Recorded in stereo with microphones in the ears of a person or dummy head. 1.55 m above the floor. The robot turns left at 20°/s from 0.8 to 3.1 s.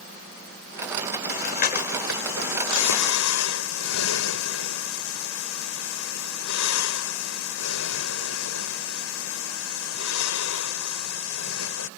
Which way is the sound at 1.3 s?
50° left (ahead or behind).